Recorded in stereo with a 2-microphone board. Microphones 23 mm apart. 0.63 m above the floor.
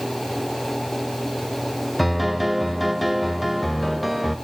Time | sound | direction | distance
2.0 | a piano | centre (ahead or behind) | 1.1 m